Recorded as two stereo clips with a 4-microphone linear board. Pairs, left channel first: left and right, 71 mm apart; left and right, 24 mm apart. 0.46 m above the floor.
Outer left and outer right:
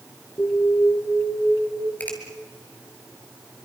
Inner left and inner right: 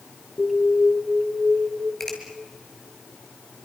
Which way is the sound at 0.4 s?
45° left (ahead or behind).